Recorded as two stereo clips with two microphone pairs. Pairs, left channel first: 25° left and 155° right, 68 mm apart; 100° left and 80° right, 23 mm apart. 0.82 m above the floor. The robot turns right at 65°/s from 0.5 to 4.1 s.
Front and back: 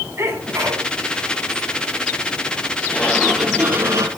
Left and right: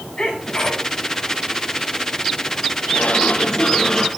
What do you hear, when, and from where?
0.2 s a sneeze: 155° left, 8.5 m; by 0.9 s 175° left, 8.5 m
2.9 s a sliding door: 85° left, 6.5 m; by 4.1 s 165° left, 6.5 m